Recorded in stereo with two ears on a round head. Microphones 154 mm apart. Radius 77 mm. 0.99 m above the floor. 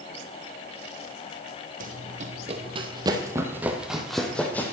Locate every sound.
1.8 s running footsteps: 50° right (ahead or behind), 1.8 m; by 4.7 s 10° left (ahead or behind), 1.9 m